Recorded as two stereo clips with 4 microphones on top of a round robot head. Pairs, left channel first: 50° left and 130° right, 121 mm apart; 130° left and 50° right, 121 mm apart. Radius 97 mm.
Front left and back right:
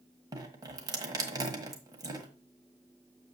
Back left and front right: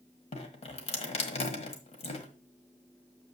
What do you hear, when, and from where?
0.3 s dripping: 170° left, 1.5 m